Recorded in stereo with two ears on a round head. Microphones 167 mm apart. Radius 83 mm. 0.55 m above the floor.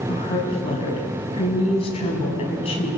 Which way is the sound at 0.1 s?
30° left (ahead or behind).